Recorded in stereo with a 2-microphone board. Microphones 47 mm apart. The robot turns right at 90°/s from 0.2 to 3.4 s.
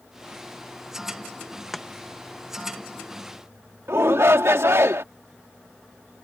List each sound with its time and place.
1.7 s chopping: centre (ahead or behind); by 1.9 s 10° left (ahead or behind)
3.9 s a shout: 70° right (ahead or behind)